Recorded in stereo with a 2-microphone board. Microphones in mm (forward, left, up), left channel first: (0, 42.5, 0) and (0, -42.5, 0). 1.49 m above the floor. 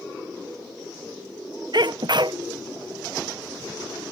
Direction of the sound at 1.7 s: 60° right (ahead or behind).